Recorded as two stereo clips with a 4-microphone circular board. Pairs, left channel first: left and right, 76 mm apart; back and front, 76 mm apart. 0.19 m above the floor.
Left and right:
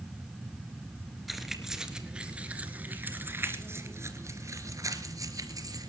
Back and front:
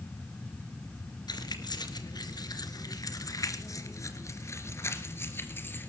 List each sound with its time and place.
1.3 s keys jangling: straight behind, 2.5 m; by 5.9 s 120° right, 3 m